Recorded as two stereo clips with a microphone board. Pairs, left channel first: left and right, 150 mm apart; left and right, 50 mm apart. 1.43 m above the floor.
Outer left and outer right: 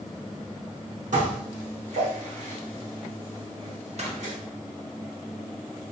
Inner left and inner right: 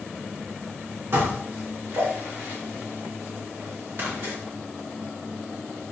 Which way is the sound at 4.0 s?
45° right (ahead or behind).